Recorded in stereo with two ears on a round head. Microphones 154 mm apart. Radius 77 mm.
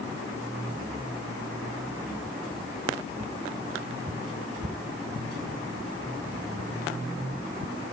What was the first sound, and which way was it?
Only background noise.